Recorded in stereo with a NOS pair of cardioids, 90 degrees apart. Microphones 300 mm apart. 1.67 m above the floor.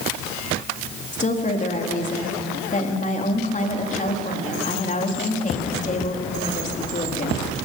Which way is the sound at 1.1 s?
25° left.